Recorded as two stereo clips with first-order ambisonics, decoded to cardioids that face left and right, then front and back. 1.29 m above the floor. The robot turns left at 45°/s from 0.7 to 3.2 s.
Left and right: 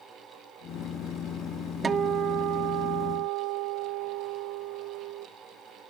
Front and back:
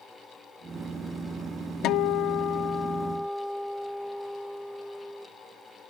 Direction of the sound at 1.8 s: 25° right.